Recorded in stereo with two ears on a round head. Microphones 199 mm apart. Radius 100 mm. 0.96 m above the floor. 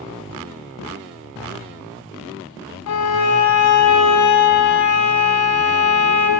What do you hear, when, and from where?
2.9 s a violin: 80° left, 0.9 m